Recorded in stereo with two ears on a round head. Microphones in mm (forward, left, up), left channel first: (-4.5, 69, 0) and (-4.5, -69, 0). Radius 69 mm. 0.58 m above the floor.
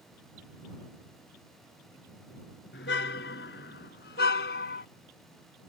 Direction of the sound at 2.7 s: 85° left.